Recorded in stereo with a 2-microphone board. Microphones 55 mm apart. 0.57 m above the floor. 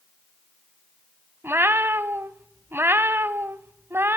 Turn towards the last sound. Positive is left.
turn(degrees=-45)  # may be behind; listen again after turning